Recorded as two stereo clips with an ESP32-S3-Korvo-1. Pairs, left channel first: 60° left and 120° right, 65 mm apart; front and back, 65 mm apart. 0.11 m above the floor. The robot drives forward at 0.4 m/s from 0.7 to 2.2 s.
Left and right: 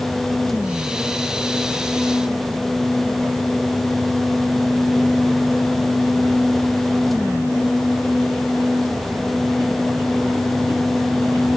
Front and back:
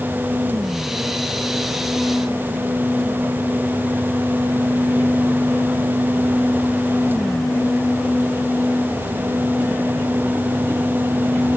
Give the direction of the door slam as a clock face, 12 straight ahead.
No door slam in this recording.